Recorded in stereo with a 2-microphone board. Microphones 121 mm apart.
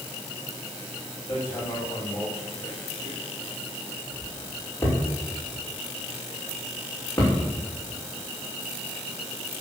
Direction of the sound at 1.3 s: 20° left (ahead or behind).